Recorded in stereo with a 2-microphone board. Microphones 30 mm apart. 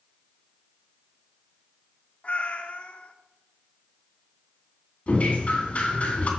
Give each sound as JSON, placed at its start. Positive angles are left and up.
{"t": 2.2, "sound": "a cat meowing", "side_deg": 50, "distance_m": 0.9}
{"t": 5.1, "sound": "dripping", "side_deg": 50, "distance_m": 2.5}